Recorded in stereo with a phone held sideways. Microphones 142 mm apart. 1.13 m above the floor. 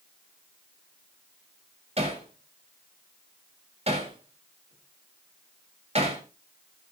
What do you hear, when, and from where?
2.0 s hammering: 45° right (ahead or behind), 4 m